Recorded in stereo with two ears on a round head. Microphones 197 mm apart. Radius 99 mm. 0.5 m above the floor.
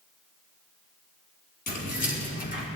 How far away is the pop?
No pop in this recording.